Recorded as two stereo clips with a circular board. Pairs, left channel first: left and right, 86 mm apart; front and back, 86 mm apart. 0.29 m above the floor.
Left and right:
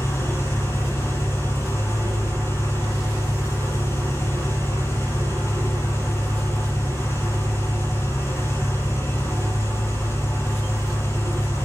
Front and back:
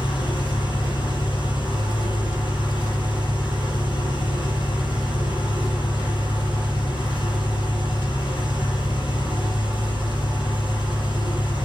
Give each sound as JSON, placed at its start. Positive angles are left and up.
{"t": 0.0, "sound": "an engine running", "azimuth_deg": 30, "distance_m": 6.5}